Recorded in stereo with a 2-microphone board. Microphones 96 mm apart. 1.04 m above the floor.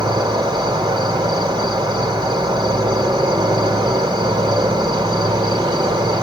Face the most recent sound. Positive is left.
turn(degrees=-45)  # may be behind; listen again after turning